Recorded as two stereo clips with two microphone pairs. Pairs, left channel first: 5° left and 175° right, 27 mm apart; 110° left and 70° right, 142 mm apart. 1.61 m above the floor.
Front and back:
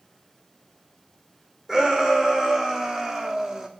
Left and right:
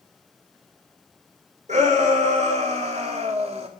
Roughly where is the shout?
Right.